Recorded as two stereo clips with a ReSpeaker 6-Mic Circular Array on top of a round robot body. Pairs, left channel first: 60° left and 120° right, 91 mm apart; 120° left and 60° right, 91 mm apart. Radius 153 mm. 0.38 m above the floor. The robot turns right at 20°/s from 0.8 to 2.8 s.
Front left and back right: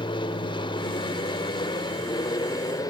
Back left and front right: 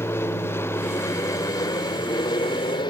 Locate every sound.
0.0 s an aircraft: 60° left; by 2.9 s 100° left